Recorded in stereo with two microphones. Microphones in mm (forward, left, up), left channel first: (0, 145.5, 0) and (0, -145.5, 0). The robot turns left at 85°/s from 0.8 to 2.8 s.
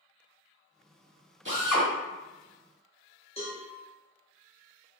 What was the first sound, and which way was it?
A drill, 135° right.